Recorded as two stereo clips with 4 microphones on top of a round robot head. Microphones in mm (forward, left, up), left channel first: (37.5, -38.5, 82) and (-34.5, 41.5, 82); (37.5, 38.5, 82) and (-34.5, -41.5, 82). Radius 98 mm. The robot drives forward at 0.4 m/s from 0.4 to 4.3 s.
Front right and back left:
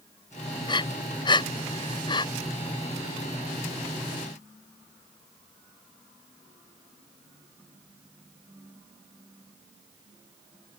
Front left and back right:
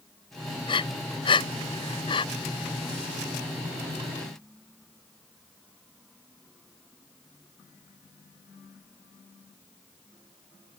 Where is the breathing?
Straight ahead.